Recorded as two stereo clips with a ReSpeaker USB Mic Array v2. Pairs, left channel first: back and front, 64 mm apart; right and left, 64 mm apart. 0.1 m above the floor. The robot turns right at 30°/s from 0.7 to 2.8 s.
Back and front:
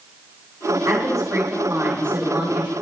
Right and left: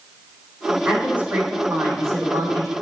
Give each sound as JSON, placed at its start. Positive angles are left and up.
{"t": 0.8, "sound": "a woman speaking", "azimuth_deg": 15, "distance_m": 3.5}